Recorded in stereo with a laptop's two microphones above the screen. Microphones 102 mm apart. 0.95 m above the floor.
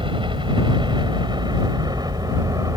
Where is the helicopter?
55° right (ahead or behind); by 2.8 s 35° right (ahead or behind).